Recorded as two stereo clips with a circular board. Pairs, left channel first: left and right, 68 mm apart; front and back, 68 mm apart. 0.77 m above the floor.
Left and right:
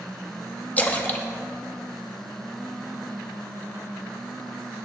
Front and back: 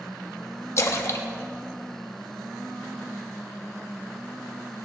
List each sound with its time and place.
0.8 s a splash: 30° left, 0.9 m